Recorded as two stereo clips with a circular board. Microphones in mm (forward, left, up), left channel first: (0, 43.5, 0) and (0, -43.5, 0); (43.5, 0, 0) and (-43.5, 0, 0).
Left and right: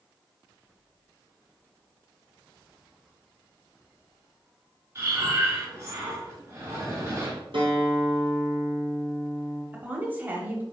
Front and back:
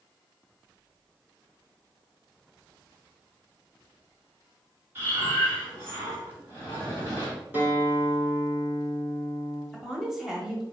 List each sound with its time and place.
5.0 s breathing: 130° right, 1.9 m
7.5 s a guitar: 110° right, 1.6 m
9.7 s a woman speaking: 100° right, 1.0 m